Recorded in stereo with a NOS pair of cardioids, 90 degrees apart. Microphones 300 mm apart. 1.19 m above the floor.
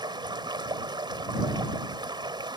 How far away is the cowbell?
I don't hear a cowbell.